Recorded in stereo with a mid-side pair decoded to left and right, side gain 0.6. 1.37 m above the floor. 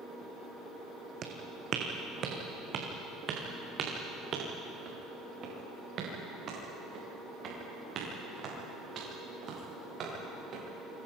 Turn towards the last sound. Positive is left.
turn(degrees=-50)